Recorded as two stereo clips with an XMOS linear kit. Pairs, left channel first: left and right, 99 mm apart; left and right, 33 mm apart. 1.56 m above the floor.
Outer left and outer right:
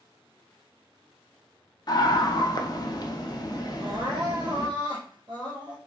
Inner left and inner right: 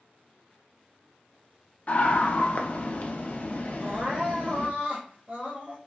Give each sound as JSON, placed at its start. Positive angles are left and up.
{"t": 1.9, "sound": "a scream", "side_deg": 45, "distance_m": 0.6}
{"t": 3.8, "sound": "crying", "side_deg": -50, "distance_m": 1.0}